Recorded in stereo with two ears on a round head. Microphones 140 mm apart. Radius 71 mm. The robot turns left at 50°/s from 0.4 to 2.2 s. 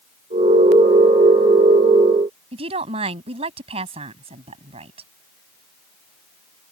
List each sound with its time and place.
2.5 s a woman speaking: 40° right (ahead or behind)